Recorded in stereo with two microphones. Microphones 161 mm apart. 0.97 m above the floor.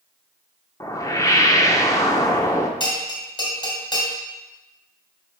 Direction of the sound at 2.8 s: 25° left (ahead or behind).